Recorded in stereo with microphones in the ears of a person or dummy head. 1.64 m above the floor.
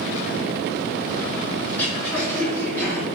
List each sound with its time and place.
1.7 s throat clearing: 5° left (ahead or behind), 3.5 m